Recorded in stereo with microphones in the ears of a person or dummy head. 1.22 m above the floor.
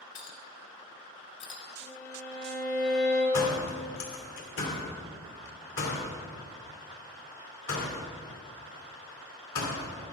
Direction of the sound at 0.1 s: 25° left (ahead or behind).